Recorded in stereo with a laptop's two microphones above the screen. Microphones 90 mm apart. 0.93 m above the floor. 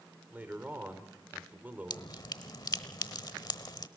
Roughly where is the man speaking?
Centre.